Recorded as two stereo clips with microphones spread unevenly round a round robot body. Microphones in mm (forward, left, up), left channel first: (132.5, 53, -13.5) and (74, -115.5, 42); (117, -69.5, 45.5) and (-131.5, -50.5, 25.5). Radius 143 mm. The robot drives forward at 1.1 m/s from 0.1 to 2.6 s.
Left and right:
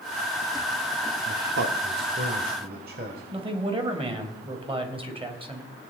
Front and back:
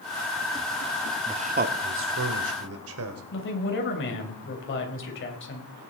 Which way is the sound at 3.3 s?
45° right.